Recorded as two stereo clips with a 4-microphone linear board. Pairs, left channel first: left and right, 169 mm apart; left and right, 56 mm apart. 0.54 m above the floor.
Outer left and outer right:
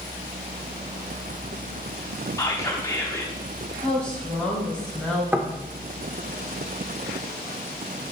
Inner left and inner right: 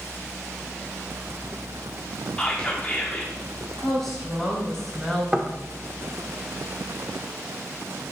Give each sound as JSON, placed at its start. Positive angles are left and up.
{"t": 2.4, "sound": "whispering", "side_deg": 20, "distance_m": 0.8}
{"t": 3.8, "sound": "a woman speaking", "side_deg": 5, "distance_m": 3.5}
{"t": 5.3, "sound": "knocking", "side_deg": -10, "distance_m": 0.9}